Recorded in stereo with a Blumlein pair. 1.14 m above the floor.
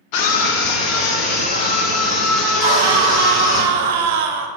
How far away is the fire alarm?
I don't hear a fire alarm.